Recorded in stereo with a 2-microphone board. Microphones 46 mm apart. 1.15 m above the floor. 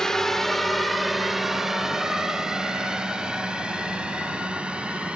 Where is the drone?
15° left (ahead or behind); by 5.2 s 20° right (ahead or behind).